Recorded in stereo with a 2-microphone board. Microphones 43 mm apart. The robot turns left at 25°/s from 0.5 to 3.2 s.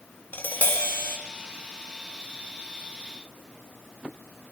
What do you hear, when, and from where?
0.3 s tapping: 50° left (ahead or behind), 2.5 m; by 1.2 s 70° left (ahead or behind), 2.5 m